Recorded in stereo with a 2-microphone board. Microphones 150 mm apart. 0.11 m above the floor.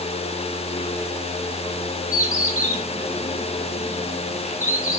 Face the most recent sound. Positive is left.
turn(degrees=55)  # may be behind; listen again after turning